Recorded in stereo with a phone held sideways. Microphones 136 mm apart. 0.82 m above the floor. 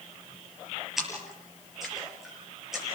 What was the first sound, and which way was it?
A splash, centre (ahead or behind).